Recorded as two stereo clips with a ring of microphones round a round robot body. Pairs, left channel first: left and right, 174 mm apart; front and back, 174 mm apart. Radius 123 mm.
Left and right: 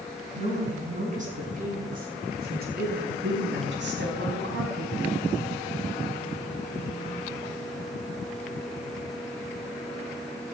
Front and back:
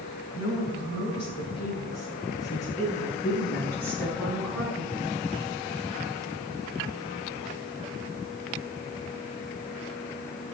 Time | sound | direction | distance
0.3 | a woman speaking | 40° right | 6.5 m